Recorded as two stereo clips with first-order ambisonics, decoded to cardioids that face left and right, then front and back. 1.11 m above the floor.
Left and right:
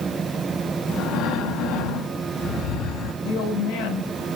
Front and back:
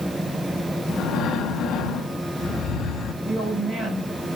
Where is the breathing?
60° left, 2.5 m.